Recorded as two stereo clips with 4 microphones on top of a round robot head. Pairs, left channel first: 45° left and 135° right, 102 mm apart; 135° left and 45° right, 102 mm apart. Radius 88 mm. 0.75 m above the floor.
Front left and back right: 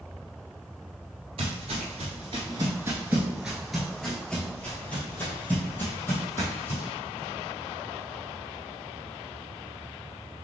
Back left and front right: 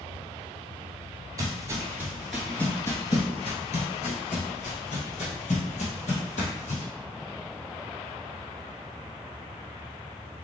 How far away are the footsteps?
About 1.0 m.